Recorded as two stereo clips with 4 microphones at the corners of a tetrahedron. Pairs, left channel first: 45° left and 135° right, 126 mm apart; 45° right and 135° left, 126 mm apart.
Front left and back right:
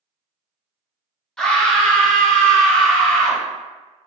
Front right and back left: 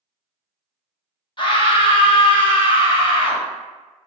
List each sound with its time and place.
1.4 s a scream: 40° right, 0.8 m